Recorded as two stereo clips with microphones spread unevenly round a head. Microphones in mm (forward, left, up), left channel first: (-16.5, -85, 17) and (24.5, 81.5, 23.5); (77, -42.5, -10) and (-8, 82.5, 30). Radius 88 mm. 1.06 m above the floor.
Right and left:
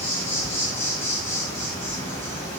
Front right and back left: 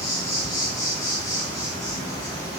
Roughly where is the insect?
Ahead right.